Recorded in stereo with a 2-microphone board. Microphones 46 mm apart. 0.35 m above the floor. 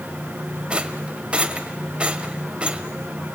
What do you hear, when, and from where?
0.7 s a rattle: 25° right (ahead or behind), 1.0 m